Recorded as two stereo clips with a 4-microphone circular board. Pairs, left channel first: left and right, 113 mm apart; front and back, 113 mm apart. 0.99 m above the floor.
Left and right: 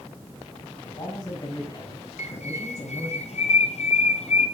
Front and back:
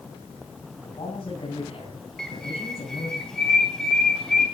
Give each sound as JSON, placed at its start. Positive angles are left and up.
{"t": 0.8, "sound": "a man speaking", "azimuth_deg": 40, "distance_m": 9.5}
{"t": 2.2, "sound": "a bird", "azimuth_deg": 85, "distance_m": 2.5}